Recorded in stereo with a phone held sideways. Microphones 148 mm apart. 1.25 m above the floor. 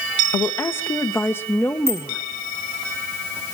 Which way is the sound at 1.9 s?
15° right (ahead or behind).